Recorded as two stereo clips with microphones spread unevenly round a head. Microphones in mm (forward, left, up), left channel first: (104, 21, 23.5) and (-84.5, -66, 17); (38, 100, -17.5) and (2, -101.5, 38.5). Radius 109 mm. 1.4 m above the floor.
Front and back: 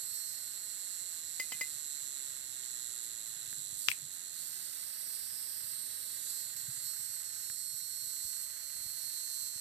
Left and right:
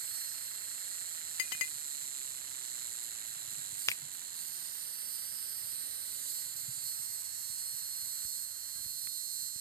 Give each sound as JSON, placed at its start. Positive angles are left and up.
{"t": 0.0, "sound": "an insect", "azimuth_deg": -155}
{"t": 1.4, "sound": "a clink", "azimuth_deg": 110}
{"t": 3.9, "sound": "a finger snap", "azimuth_deg": 5}